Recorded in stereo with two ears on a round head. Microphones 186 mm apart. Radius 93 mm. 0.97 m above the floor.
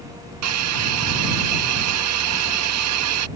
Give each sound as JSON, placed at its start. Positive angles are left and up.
{"t": 0.4, "sound": "a hiss", "side_deg": -90}